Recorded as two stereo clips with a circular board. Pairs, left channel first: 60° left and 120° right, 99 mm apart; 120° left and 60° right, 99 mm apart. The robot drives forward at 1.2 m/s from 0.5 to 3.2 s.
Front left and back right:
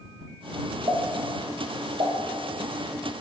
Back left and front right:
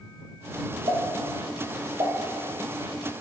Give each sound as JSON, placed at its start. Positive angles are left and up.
{"t": 0.9, "sound": "a pop", "azimuth_deg": -90, "distance_m": 6.0}